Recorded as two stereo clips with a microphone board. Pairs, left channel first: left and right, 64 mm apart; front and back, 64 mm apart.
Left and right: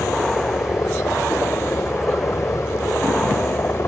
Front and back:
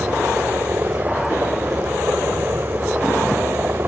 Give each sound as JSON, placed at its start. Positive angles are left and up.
{"t": 0.0, "sound": "a helicopter", "azimuth_deg": 130}